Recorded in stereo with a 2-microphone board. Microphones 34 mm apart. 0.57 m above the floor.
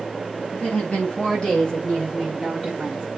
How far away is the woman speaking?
About 4 m.